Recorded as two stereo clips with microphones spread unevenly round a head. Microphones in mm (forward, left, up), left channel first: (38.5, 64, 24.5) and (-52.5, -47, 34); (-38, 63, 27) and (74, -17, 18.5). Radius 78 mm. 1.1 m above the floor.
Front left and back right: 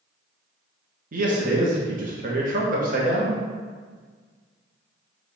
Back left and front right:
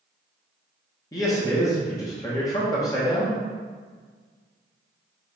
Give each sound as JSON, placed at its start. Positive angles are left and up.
{"t": 1.1, "sound": "a man speaking", "azimuth_deg": -150, "distance_m": 1.0}